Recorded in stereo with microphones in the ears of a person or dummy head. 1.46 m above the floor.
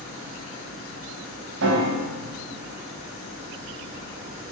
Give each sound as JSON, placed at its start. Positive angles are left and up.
{"t": 1.6, "sound": "a piano", "side_deg": -75, "distance_m": 3.5}